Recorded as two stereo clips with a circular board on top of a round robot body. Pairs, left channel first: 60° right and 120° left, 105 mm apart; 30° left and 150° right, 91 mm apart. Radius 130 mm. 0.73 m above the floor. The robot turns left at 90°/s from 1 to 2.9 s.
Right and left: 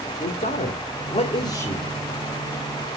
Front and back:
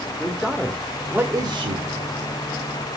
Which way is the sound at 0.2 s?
60° right.